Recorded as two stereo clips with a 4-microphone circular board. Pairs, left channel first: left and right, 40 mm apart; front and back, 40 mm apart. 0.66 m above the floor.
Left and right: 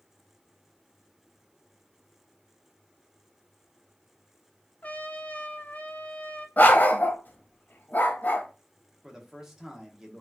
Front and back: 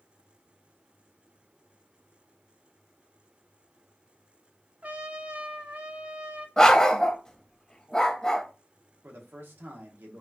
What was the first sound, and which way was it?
A trumpet, 135° left.